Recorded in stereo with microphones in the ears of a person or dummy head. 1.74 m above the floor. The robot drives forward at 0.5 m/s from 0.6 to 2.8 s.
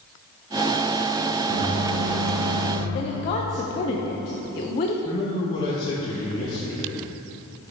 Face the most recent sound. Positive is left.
turn(degrees=25)  # may be behind; listen again after turning